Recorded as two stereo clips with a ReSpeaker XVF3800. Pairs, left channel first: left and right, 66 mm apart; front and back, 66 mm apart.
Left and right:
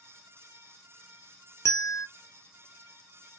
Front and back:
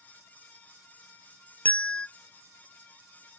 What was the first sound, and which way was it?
A bell, 60° left.